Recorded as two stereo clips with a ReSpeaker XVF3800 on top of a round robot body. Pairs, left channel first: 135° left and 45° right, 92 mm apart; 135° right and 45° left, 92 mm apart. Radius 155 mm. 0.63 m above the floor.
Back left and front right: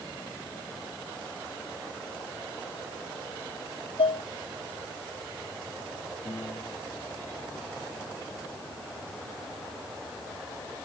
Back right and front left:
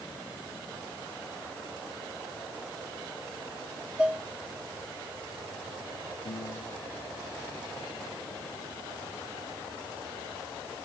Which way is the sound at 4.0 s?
125° left.